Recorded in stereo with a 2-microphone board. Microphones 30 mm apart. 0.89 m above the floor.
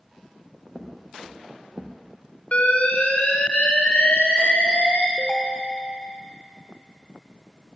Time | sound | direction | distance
0.8 | footsteps | 5° right (ahead or behind) | 2.5 m
2.5 | an alarm | 50° left (ahead or behind) | 2 m
5.2 | a ringtone | 25° left (ahead or behind) | 2 m